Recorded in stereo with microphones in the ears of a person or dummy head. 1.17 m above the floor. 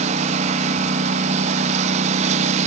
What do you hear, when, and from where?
0.0 s a lawn mower: 45° right (ahead or behind)